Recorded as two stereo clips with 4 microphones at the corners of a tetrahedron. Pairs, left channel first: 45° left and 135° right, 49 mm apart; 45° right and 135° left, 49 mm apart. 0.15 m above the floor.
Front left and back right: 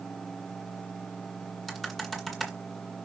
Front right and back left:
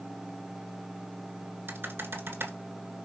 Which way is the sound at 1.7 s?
130° left.